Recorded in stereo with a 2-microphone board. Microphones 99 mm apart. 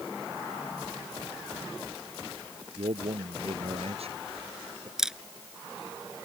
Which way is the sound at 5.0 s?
5° right (ahead or behind).